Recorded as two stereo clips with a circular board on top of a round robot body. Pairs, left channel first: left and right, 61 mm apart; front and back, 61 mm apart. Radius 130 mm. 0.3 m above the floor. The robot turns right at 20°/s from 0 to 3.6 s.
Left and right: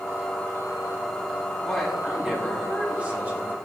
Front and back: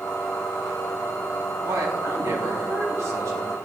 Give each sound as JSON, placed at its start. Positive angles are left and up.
{"t": 1.6, "sound": "a woman speaking", "azimuth_deg": 175, "distance_m": 3.5}